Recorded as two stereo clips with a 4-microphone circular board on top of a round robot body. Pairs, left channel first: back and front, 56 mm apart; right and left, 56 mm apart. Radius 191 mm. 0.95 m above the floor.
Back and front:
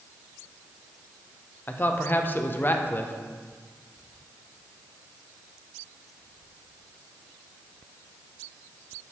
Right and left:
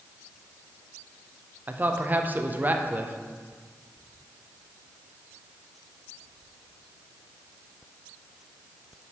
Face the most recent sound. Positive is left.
turn(degrees=140)